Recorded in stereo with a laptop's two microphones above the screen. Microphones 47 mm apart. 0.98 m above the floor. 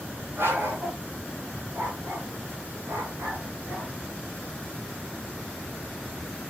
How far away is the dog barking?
About 6.5 m.